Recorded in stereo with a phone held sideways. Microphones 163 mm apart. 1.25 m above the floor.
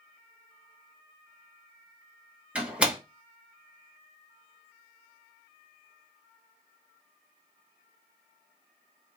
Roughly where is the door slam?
Centre.